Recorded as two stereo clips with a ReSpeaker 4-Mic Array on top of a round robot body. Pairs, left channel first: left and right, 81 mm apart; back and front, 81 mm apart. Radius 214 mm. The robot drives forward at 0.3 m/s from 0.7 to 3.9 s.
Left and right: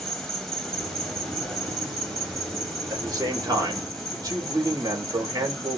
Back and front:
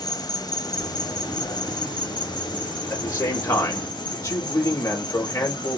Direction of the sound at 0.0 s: 175° left.